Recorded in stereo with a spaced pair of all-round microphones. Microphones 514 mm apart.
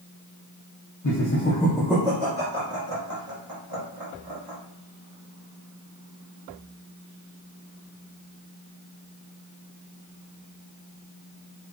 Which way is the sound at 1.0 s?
35° left (ahead or behind).